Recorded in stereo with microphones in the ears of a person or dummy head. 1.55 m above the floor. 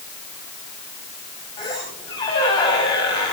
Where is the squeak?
25° left (ahead or behind), 6 m.